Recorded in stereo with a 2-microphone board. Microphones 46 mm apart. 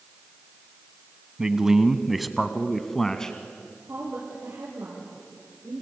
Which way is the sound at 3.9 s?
70° right (ahead or behind).